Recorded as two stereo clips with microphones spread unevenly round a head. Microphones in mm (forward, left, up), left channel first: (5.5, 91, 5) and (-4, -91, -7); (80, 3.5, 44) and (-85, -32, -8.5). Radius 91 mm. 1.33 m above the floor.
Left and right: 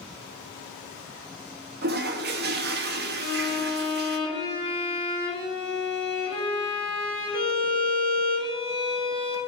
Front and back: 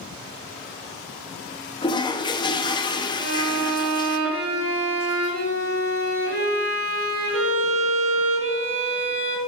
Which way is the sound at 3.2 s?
130° right.